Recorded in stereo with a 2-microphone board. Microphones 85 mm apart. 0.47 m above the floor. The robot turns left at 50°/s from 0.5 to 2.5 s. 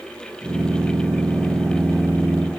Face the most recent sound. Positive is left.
No sound to turn to.